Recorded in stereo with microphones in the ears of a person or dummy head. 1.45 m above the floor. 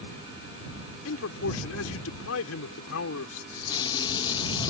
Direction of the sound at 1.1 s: 85° left.